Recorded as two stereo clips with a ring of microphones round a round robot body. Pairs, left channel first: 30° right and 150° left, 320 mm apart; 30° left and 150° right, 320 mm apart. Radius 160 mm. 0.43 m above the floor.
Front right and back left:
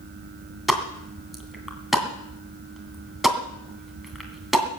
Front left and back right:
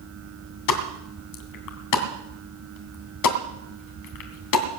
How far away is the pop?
About 2.5 m.